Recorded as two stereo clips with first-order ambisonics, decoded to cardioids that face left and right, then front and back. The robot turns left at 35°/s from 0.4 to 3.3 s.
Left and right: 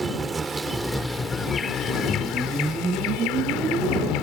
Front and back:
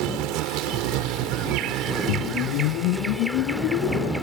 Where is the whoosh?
15° left; by 4.1 s 30° right.